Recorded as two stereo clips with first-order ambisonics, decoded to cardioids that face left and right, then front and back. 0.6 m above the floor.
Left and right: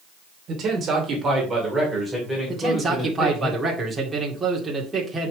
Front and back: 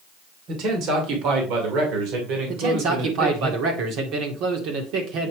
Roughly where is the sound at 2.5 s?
Behind.